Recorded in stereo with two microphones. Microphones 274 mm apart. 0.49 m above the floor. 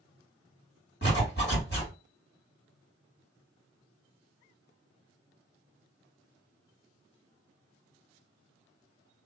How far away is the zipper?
About 1.8 m.